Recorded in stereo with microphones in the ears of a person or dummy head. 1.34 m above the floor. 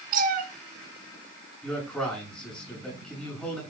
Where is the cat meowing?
50° right (ahead or behind), 2.5 m.